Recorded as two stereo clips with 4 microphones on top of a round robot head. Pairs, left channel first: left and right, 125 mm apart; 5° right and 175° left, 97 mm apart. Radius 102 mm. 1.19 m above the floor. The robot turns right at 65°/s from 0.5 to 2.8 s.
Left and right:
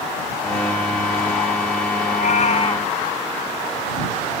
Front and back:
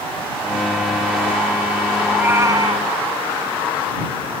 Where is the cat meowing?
95° left; by 2.9 s 140° left.